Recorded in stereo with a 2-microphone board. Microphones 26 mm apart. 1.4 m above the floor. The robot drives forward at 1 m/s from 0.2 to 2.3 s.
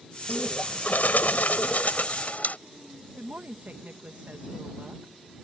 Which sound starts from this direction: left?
A bird, at 0.3 s.